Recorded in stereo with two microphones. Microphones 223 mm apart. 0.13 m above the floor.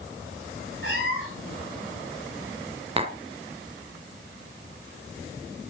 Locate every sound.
0.8 s a cat meowing: 60° left (ahead or behind), 6.5 m
3.0 s tapping: 25° right (ahead or behind), 1.0 m